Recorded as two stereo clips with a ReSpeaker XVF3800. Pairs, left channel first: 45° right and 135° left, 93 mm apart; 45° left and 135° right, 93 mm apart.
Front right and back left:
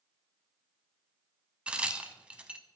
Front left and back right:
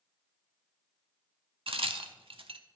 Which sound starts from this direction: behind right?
A crack, at 1.7 s.